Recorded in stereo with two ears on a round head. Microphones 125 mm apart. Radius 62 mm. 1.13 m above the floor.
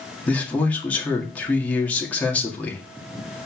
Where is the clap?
I don't hear a clap.